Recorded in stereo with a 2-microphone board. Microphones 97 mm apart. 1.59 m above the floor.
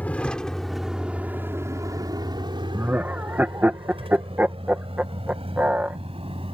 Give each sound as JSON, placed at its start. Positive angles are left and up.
{"t": 0.0, "sound": "a vehicle", "side_deg": 15}
{"t": 2.7, "sound": "laughter", "side_deg": -20}